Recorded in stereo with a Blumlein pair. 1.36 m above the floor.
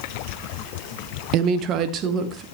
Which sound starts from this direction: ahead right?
A woman speaking, at 1.3 s.